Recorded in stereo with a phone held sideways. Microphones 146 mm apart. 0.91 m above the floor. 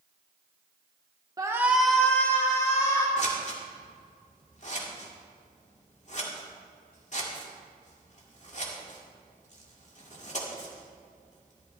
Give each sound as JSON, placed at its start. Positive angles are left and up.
{"t": 1.4, "sound": "a shout", "side_deg": -25, "distance_m": 0.9}
{"t": 3.2, "sound": "scissors", "side_deg": 50, "distance_m": 2.5}